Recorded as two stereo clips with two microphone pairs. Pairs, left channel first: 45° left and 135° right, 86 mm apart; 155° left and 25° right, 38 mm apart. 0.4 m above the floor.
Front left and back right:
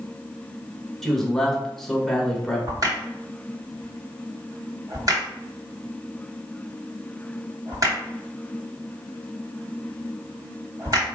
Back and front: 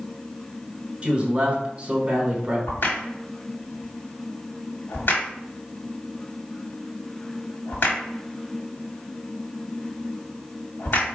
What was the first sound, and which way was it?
A man speaking, 40° right.